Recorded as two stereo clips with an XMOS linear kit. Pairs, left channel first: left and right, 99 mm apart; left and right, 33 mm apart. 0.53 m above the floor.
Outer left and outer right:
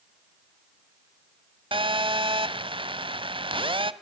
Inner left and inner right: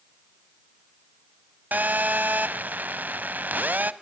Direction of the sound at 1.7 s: 60° right (ahead or behind).